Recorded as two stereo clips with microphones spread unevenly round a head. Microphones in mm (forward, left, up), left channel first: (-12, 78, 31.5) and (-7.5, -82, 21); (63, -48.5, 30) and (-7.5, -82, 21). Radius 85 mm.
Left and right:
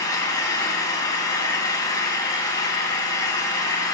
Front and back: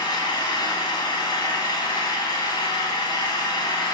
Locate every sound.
0.0 s an engine running: 25° left, 2 m